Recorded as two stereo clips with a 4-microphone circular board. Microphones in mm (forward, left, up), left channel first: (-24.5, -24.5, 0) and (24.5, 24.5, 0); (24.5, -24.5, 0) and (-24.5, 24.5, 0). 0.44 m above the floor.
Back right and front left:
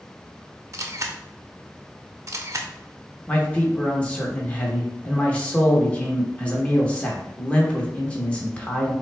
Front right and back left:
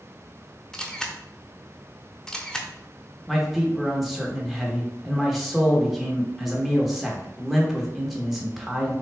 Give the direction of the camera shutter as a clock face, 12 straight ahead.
11 o'clock.